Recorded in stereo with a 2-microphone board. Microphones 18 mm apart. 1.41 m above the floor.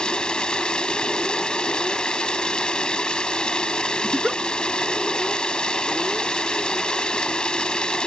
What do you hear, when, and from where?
0.0 s running water: 65° left (ahead or behind)
4.0 s a giggle: 45° right (ahead or behind)